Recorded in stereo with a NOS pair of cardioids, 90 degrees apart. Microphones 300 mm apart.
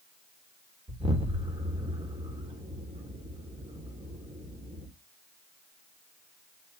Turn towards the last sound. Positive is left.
turn(degrees=-15)